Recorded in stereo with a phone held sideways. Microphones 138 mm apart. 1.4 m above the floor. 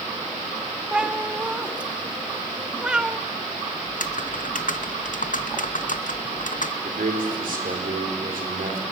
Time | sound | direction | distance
0.9 | a cat meowing | 5° right (ahead or behind) | 1.1 m
3.9 | typing on a keyboard | 70° left (ahead or behind) | 0.9 m
6.8 | a man speaking | 90° right | 4.5 m